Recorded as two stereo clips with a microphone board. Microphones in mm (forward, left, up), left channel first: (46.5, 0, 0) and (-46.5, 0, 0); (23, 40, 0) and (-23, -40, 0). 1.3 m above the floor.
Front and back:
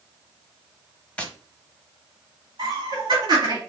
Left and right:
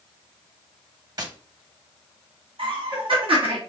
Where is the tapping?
75° right, 0.8 m.